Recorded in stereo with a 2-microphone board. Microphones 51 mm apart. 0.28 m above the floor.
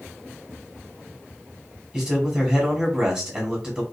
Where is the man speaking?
20° right (ahead or behind), 2 m.